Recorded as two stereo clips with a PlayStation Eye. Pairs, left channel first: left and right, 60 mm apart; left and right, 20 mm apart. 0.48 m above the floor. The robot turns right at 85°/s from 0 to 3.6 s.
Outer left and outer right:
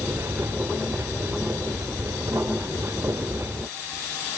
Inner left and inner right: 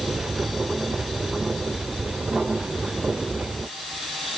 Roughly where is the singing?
I don't hear singing.